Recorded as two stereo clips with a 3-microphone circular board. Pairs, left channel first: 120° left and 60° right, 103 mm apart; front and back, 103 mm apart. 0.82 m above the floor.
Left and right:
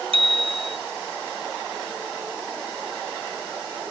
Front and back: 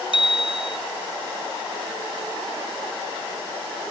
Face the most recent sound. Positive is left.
turn(degrees=-35)